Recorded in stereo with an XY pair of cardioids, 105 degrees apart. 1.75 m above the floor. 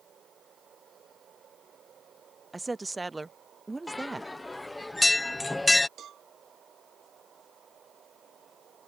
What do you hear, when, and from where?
2.5 s a woman speaking: 15° right
3.9 s a bell: 15° left
6.0 s a cowbell: 60° right